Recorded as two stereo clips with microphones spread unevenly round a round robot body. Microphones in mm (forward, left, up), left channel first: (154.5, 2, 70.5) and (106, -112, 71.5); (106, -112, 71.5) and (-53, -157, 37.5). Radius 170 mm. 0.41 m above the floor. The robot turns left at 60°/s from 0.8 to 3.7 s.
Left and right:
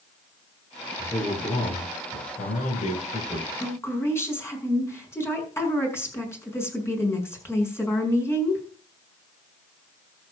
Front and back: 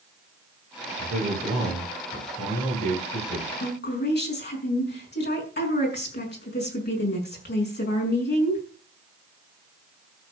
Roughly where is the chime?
No chime in this recording.